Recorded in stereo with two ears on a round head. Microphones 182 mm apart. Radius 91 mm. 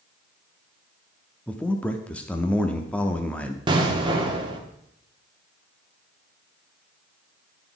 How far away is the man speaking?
About 0.6 m.